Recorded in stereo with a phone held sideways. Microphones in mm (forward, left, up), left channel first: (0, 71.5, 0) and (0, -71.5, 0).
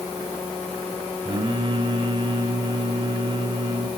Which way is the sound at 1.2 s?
40° right (ahead or behind).